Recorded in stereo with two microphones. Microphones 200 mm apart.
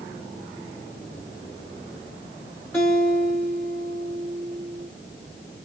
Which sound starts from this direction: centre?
A guitar, at 2.7 s.